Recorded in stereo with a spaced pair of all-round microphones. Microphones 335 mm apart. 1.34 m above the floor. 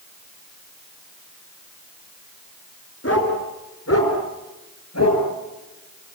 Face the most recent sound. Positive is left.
turn(degrees=50)  # may be behind; listen again after turning